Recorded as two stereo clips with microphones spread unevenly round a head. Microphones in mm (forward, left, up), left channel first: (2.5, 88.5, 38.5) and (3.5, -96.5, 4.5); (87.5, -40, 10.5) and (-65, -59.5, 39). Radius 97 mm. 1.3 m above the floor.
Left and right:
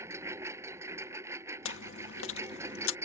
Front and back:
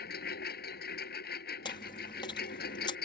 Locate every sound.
0.0 s a lawn mower: 10° right
1.6 s chewing: 75° left